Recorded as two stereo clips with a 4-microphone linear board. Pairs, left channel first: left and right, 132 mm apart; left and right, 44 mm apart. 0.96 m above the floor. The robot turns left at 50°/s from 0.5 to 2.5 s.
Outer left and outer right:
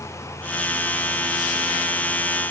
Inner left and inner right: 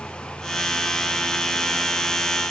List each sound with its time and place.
Only background noise.